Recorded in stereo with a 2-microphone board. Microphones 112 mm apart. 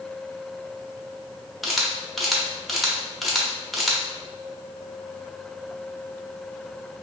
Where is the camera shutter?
Centre (ahead or behind), 0.6 m.